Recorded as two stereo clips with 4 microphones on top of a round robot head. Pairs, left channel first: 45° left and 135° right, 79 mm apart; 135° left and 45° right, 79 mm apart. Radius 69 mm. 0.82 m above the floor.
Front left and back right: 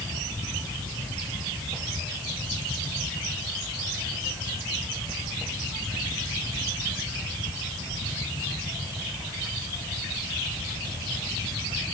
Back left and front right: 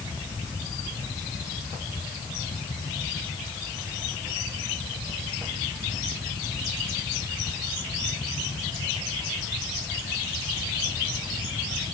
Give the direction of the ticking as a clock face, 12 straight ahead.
I don't hear ticking.